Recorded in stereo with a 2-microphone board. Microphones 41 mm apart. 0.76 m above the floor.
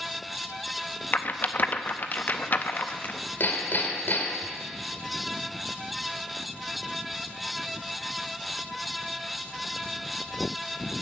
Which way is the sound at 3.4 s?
55° left (ahead or behind).